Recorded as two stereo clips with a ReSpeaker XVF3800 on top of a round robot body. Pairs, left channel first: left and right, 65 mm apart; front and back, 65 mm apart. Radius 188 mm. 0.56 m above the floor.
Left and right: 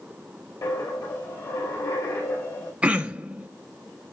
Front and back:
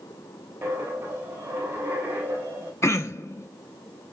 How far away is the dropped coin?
About 3 m.